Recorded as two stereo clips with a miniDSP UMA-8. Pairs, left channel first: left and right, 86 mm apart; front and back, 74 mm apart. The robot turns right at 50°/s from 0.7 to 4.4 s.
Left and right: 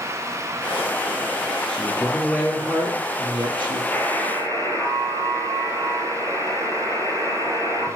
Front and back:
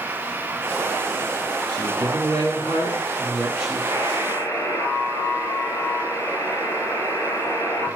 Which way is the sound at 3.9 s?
5° left.